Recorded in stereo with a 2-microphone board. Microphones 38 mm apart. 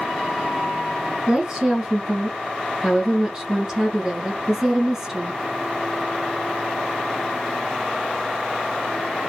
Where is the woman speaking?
15° right (ahead or behind), 1.3 m.